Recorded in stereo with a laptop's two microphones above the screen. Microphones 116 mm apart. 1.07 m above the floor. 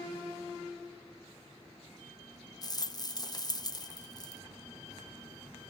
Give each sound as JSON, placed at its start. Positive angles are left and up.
{"t": 2.6, "sound": "a rattle", "side_deg": 35, "distance_m": 0.6}